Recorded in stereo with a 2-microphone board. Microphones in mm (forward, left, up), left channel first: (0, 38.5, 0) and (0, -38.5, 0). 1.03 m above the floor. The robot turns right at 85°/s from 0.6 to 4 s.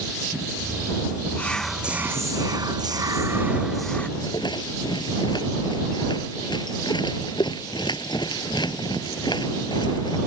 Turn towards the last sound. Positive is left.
turn(degrees=75)  # may be behind; listen again after turning